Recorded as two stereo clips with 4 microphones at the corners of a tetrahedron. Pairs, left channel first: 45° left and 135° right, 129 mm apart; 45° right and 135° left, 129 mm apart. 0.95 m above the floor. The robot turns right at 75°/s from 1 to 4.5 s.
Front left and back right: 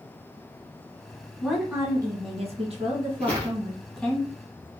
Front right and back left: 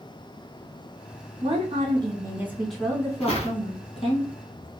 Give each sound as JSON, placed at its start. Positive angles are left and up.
{"t": 1.4, "sound": "a woman speaking", "azimuth_deg": 130, "distance_m": 1.2}
{"t": 3.2, "sound": "footsteps", "azimuth_deg": -35, "distance_m": 1.6}